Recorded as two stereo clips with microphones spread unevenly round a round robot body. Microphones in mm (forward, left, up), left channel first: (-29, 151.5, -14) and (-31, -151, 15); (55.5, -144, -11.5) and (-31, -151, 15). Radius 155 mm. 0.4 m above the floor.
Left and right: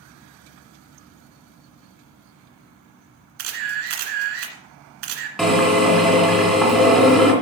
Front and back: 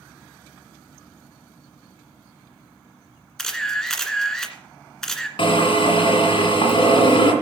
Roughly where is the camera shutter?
Right.